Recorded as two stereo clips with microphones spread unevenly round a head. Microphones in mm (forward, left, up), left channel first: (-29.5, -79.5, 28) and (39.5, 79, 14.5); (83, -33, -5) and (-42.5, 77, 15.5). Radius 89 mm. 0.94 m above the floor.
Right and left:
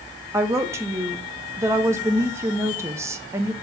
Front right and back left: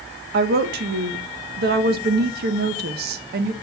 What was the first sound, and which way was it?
A woman speaking, 135° left.